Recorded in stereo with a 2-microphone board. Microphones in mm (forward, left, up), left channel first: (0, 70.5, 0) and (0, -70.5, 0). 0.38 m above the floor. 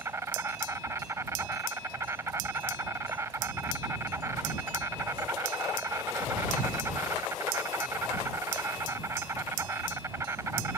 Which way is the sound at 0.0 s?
20° right (ahead or behind).